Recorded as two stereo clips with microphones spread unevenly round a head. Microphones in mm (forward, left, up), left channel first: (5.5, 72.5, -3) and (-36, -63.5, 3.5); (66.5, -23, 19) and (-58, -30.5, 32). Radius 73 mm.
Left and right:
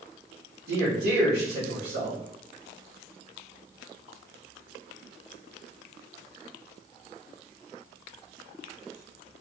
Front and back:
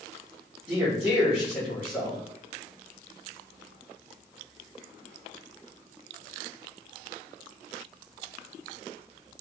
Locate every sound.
0.7 s a man speaking: 100° right, 1.3 m